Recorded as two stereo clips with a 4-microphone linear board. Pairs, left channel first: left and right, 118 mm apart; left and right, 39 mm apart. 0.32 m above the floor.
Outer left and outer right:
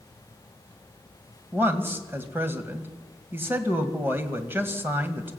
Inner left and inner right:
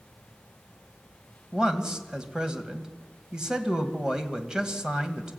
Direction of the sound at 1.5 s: 20° right (ahead or behind).